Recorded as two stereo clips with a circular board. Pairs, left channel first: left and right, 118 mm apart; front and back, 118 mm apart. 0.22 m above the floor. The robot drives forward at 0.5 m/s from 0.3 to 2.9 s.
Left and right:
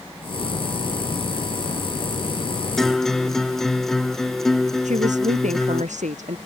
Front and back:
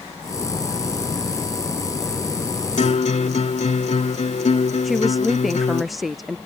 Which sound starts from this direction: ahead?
A guitar, at 2.8 s.